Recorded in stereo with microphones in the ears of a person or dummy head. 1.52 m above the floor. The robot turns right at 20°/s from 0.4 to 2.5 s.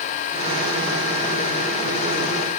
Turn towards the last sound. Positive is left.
No sound to turn to.